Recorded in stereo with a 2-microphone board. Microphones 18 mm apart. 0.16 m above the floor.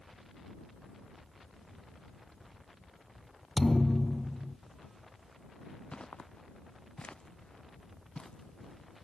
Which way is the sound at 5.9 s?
75° left (ahead or behind).